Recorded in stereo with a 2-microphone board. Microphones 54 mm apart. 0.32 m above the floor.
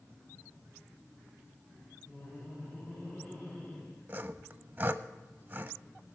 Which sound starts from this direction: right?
Sawing, at 4.1 s.